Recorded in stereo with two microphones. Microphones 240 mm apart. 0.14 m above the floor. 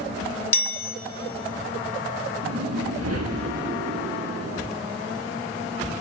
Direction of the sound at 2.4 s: 75° right (ahead or behind).